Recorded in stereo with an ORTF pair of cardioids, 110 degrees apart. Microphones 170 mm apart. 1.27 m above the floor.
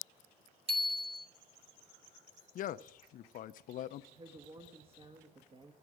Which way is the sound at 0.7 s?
35° right.